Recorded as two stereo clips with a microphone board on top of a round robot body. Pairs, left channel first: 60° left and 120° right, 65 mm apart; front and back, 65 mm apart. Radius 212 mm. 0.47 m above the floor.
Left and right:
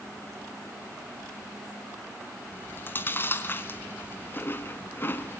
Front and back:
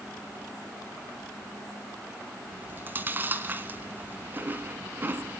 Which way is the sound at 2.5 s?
115° left.